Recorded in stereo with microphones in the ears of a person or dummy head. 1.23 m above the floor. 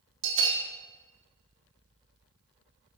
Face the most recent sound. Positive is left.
turn(degrees=-55)  # may be behind; listen again after turning